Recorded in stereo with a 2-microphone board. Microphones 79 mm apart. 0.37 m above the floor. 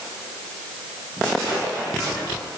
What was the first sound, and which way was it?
Only background noise.